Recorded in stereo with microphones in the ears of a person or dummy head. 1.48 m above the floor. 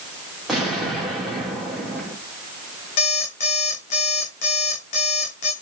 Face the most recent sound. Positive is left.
turn(degrees=45)  # may be behind; listen again after turning